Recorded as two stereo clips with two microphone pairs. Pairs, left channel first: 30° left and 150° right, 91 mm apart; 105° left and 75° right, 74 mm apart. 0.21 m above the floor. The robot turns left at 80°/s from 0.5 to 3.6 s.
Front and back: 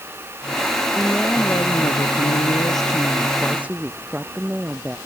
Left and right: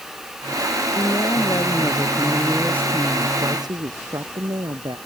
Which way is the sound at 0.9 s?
135° left.